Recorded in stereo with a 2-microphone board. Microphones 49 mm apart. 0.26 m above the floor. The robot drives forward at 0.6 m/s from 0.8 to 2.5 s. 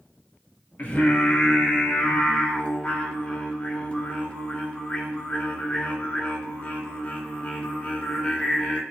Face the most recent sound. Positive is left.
turn(degrees=30)  # may be behind; listen again after turning